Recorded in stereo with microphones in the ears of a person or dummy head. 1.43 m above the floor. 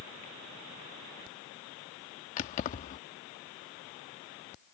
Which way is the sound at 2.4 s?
45° left (ahead or behind).